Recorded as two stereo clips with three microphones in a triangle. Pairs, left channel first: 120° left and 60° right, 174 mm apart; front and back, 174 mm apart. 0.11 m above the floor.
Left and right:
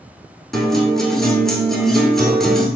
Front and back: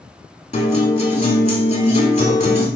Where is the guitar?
35° left, 1.2 m.